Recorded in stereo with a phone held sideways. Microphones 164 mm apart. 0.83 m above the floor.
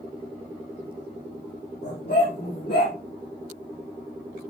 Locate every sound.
1.8 s a dog barking: 85° left, 8.5 m; by 3.0 s 80° left, 8.5 m